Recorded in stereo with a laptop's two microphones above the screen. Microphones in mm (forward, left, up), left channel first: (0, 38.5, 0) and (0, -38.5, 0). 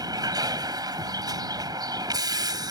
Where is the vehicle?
60° right (ahead or behind).